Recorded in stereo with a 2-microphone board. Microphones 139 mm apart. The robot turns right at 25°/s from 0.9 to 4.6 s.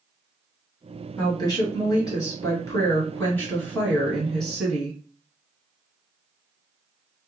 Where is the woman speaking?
30° left (ahead or behind), 1.8 m; by 5.0 s centre (ahead or behind), 1.8 m.